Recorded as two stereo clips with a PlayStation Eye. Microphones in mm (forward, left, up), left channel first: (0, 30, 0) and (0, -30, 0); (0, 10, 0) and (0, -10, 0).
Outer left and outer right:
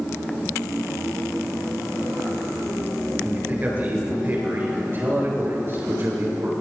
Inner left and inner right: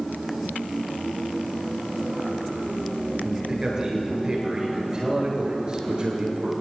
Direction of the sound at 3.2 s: 30° right (ahead or behind).